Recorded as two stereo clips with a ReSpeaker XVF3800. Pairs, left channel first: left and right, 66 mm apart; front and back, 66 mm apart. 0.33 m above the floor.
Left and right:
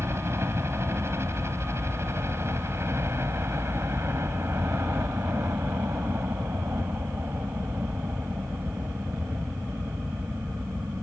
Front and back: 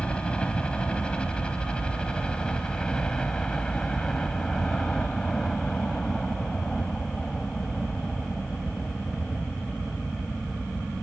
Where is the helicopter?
70° right; by 11.0 s 85° right.